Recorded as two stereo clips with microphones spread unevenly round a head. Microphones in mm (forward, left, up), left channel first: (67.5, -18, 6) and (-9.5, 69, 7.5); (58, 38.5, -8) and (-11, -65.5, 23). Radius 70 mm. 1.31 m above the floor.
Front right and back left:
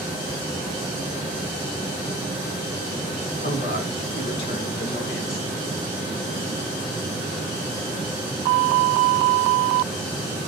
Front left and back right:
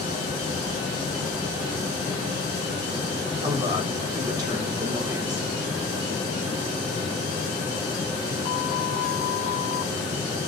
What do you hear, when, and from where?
3.4 s a woman speaking: 60° right, 4 m